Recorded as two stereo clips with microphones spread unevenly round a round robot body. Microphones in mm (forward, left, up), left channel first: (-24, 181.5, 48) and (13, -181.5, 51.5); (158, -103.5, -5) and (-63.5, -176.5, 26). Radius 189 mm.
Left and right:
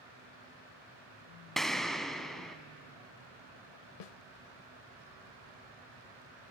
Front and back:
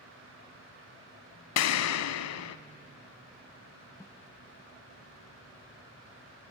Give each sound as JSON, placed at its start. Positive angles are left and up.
{"t": 1.6, "sound": "an explosion", "azimuth_deg": 5, "distance_m": 0.6}
{"t": 4.0, "sound": "a snare drum", "azimuth_deg": 100, "distance_m": 0.7}